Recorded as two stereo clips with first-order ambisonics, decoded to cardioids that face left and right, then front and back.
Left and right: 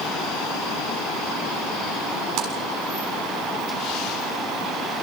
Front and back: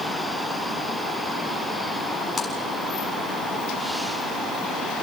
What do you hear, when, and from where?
2.4 s a splash: 75° right, 6.5 m